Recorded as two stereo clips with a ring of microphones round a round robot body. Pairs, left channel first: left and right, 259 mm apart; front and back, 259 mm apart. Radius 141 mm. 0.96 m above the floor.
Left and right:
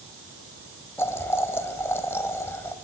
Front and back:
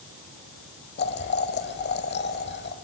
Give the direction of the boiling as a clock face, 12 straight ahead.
12 o'clock.